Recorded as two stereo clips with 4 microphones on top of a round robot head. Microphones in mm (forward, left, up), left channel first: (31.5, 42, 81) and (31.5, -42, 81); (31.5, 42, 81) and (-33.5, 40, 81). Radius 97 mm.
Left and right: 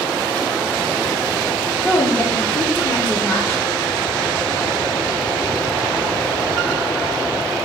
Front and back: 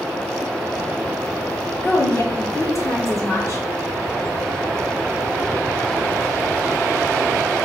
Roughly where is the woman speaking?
Ahead.